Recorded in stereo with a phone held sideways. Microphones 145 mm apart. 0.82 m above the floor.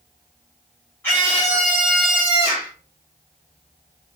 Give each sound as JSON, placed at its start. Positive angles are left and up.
{"t": 1.0, "sound": "a scream", "side_deg": 15, "distance_m": 1.6}